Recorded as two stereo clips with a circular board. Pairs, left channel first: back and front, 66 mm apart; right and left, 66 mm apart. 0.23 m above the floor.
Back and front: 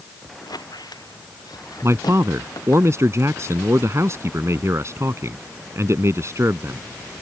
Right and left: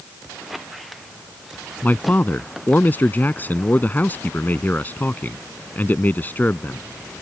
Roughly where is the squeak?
Behind.